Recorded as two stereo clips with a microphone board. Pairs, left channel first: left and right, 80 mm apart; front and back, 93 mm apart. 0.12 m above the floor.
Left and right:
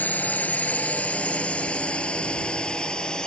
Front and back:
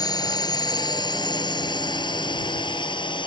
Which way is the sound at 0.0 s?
25° left.